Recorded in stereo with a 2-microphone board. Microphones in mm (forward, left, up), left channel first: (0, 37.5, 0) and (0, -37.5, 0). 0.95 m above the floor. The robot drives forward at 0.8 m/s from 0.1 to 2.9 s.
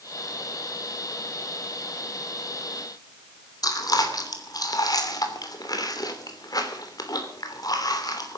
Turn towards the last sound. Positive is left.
turn(degrees=55)  # may be behind; listen again after turning